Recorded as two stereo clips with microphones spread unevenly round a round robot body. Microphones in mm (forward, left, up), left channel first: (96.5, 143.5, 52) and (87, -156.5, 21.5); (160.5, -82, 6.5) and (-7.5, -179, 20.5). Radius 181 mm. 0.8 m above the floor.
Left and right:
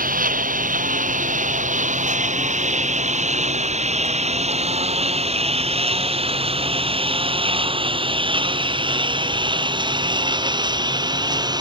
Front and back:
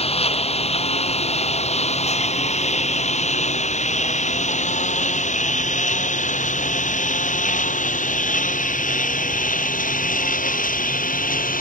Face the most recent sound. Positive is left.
turn(degrees=-15)